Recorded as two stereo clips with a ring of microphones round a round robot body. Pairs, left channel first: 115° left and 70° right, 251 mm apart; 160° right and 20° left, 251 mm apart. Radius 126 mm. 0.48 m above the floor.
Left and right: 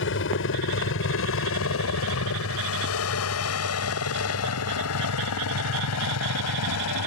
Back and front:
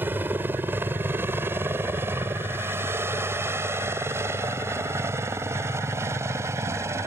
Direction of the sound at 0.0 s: 100° left.